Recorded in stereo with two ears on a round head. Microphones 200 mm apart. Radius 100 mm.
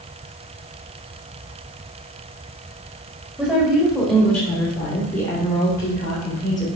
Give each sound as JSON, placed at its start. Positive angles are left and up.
{"t": 3.4, "sound": "a woman speaking", "side_deg": 0, "distance_m": 2.0}